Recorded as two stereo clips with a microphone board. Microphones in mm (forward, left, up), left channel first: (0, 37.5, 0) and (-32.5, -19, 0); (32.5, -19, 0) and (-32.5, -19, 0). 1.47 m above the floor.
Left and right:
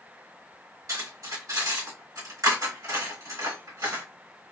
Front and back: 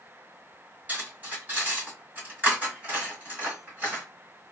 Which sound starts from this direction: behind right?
Cutlery clinking, at 0.9 s.